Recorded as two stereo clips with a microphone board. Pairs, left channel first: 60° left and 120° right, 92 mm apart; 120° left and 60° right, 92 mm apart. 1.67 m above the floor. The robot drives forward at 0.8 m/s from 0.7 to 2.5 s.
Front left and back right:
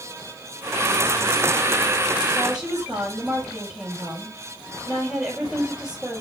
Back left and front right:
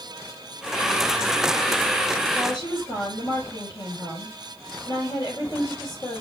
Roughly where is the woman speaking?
Behind.